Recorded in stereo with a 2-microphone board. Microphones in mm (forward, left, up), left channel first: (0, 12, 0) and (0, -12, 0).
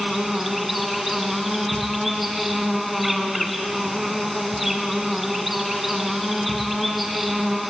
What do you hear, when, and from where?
0.0 s an insect: 5° right (ahead or behind), 2 m